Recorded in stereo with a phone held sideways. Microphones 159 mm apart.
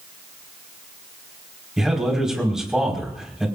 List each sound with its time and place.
1.8 s a man speaking: centre (ahead or behind), 5 m